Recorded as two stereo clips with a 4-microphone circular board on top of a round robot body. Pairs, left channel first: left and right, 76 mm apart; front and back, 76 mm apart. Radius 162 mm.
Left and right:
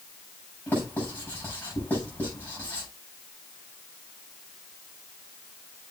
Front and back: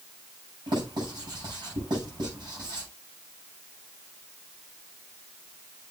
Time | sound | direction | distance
0.7 | writing | 160° left | 8 m